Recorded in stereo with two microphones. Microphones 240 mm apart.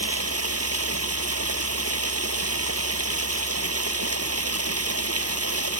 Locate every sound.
0.0 s running water: 85° right